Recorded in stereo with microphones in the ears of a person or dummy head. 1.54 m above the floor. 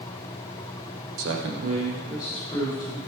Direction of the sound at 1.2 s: 75° right (ahead or behind).